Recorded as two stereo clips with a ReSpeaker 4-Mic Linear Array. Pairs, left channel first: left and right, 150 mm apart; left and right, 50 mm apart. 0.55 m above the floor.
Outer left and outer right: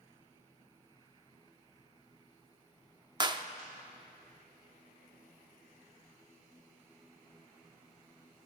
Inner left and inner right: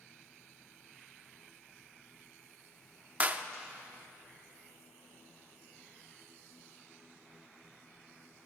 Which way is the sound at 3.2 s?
30° right (ahead or behind).